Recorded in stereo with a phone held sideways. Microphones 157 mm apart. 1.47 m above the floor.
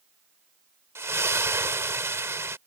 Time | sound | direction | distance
0.9 | a splash | 15° right (ahead or behind) | ?